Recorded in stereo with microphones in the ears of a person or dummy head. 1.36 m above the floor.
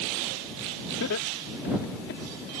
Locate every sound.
1.0 s laughter: 70° left (ahead or behind); by 2.2 s 50° left (ahead or behind)